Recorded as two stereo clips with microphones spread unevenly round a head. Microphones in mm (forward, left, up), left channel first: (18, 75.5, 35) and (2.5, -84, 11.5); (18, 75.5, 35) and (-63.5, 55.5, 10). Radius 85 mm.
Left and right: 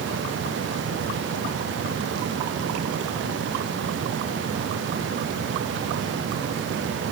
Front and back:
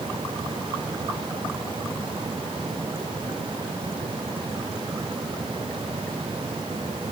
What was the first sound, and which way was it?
Only background noise.